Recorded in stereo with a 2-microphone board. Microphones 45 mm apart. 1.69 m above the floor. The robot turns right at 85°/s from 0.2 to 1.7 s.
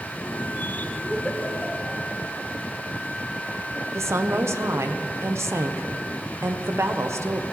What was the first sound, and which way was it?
A giggle, 15° left (ahead or behind).